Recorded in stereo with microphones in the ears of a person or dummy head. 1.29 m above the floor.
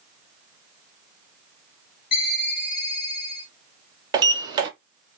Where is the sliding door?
20° right (ahead or behind), 0.6 m.